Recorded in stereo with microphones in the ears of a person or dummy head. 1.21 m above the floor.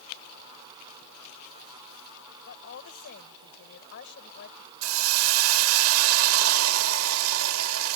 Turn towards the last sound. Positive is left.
turn(degrees=-85)